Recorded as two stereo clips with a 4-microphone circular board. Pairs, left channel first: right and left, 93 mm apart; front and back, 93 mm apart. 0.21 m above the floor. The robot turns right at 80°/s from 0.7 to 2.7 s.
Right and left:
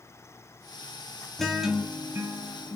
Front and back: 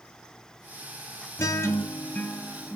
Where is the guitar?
10° right, 0.5 m; by 2.8 s 95° left, 0.5 m.